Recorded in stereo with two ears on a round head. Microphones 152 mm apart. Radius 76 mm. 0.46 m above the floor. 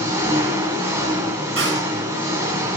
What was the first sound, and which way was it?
An engine running, 15° right (ahead or behind).